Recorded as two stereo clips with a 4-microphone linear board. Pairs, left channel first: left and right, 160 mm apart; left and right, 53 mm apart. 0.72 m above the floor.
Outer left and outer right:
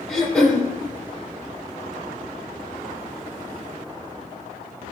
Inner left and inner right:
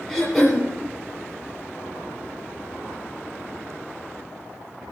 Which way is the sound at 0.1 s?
5° left (ahead or behind).